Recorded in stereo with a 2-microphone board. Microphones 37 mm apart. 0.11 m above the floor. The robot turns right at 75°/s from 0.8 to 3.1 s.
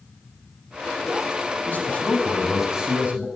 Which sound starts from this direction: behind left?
A man speaking, at 1.7 s.